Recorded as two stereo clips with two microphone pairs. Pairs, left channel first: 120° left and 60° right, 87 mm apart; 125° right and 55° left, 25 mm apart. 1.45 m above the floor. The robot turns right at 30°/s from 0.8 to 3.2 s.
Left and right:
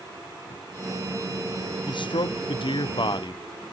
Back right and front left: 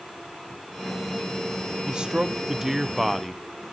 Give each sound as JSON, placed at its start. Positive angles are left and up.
{"t": 1.9, "sound": "a man speaking", "azimuth_deg": 105, "distance_m": 0.9}